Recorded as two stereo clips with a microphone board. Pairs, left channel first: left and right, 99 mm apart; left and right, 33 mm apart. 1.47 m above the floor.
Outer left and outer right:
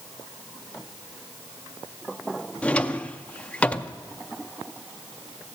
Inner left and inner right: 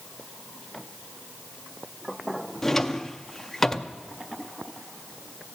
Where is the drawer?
10° left (ahead or behind), 0.6 m.